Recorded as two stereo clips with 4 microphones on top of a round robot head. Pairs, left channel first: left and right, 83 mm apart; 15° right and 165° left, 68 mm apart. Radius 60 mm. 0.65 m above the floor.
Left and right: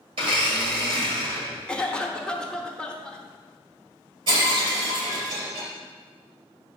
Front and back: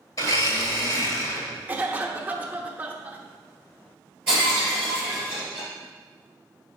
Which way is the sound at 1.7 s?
150° left.